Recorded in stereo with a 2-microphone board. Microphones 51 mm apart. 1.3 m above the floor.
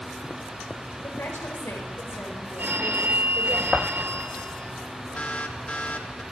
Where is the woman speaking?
65° left (ahead or behind), 6 m.